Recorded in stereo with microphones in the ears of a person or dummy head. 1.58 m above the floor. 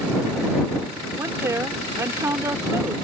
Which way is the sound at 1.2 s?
10° right (ahead or behind).